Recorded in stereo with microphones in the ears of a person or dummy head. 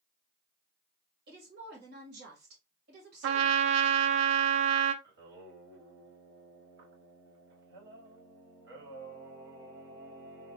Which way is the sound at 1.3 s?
65° right (ahead or behind).